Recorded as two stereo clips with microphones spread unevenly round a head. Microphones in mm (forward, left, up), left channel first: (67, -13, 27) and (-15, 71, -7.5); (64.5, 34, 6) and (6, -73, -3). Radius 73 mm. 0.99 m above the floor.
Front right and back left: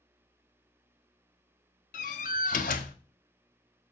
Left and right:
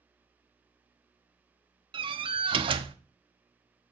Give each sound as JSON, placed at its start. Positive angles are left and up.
{"t": 1.9, "sound": "a door slam", "azimuth_deg": -75, "distance_m": 0.9}